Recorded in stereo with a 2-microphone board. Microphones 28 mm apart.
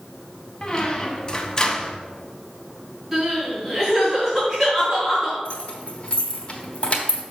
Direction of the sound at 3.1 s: 15° right (ahead or behind).